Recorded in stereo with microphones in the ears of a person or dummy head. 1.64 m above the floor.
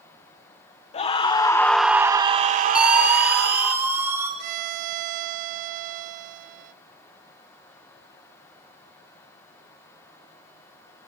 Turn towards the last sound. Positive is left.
turn(degrees=-55)  # may be behind; listen again after turning